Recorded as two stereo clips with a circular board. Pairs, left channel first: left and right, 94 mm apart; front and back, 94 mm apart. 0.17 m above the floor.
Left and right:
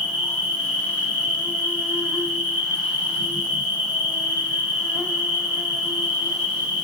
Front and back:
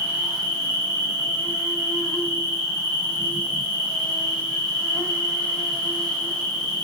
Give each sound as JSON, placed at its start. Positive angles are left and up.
{"t": 0.0, "sound": "an insect", "azimuth_deg": 45, "distance_m": 2.5}